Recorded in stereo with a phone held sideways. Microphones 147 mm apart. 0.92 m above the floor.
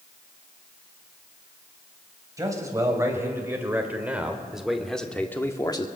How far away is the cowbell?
No cowbell in this recording.